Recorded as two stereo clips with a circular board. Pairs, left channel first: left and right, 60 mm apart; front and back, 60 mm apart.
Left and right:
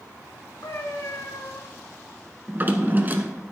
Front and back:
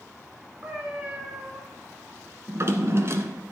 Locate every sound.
0.6 s a cat meowing: 120° left, 3 m
2.5 s a drawer: 145° right, 0.9 m